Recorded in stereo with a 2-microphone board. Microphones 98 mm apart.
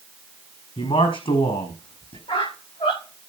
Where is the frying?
I don't hear frying.